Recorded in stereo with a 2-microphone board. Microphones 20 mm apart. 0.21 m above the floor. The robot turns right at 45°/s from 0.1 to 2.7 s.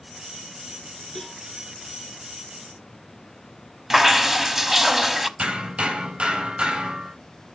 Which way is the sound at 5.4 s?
60° right (ahead or behind).